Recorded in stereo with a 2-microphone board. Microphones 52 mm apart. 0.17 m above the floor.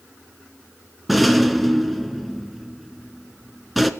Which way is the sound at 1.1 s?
Centre (ahead or behind).